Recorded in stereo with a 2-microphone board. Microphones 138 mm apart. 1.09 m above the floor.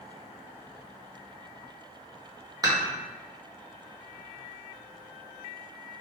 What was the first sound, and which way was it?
Dishes clattering, 25° right (ahead or behind).